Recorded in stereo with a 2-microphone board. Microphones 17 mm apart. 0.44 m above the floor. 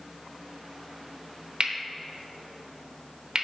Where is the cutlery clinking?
45° right (ahead or behind), 0.8 m.